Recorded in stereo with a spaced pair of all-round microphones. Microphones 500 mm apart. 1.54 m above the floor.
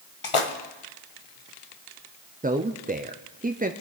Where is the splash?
65° left (ahead or behind), 1.1 m.